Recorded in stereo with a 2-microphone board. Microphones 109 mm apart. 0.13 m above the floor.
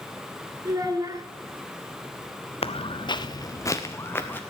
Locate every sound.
0.7 s a child speaking: 30° right (ahead or behind), 1.5 m
2.6 s footsteps: 60° left (ahead or behind), 1.1 m; by 4.4 s 20° left (ahead or behind), 2 m